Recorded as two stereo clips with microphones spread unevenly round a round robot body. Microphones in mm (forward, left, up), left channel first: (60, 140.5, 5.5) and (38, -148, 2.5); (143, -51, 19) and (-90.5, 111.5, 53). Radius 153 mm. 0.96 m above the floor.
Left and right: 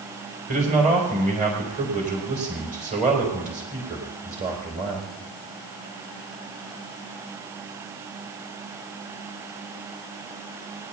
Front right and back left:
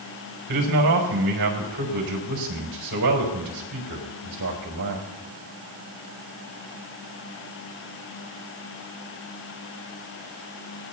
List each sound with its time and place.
0.5 s a man speaking: 160° right, 4.5 m